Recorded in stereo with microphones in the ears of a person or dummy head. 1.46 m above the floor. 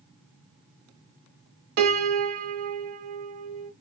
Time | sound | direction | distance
1.8 | a piano | 45° right (ahead or behind) | 0.7 m